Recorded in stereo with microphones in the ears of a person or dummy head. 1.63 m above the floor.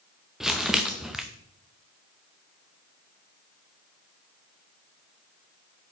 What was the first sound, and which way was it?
Crumpling, centre (ahead or behind).